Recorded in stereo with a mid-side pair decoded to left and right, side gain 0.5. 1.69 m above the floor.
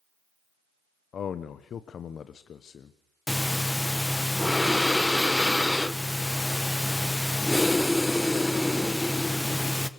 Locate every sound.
1.1 s a man speaking: 50° left, 1.0 m
3.3 s breathing: 10° left, 1.2 m